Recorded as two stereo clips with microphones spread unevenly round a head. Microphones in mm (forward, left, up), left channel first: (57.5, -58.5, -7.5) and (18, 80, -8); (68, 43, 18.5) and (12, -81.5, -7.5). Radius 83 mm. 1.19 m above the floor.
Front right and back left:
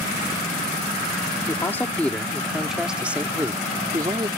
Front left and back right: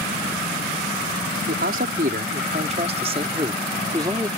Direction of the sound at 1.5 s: 150° right.